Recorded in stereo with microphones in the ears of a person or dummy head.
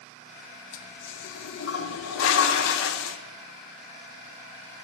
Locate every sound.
0.7 s a toilet flushing: 80° left, 0.7 m